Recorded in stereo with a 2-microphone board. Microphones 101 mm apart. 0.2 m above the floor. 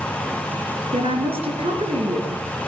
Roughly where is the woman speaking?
Right.